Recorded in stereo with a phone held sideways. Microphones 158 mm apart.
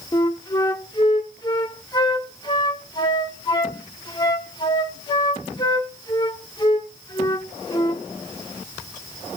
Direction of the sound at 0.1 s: 25° left (ahead or behind).